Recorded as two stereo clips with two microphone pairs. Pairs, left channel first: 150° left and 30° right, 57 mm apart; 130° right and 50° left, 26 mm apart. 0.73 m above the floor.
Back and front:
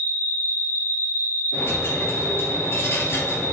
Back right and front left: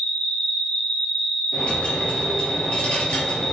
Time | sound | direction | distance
0.0 | an insect | 160° right | 2.5 m
1.5 | a dropped coin | 170° right | 3.5 m